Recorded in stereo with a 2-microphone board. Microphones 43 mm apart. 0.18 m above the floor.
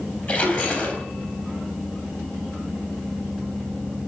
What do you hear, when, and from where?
0.3 s a splash: 40° left (ahead or behind), 3.5 m